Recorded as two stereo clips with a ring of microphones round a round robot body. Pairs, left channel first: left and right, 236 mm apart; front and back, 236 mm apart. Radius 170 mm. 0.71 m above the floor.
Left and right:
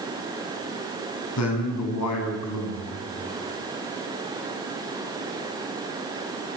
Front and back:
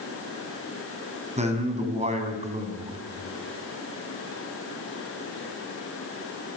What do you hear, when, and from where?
1.4 s a man speaking: 120° left, 7 m